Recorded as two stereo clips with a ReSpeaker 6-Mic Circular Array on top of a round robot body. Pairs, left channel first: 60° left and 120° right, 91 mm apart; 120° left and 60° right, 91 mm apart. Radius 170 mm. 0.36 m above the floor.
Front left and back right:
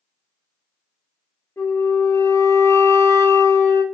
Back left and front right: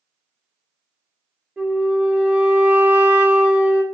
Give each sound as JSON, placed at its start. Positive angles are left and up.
{"t": 1.6, "sound": "a flute", "azimuth_deg": 10, "distance_m": 0.8}